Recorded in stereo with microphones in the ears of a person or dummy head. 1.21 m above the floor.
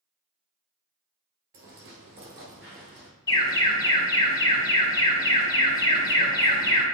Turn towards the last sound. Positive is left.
turn(degrees=25)  # may be behind; listen again after turning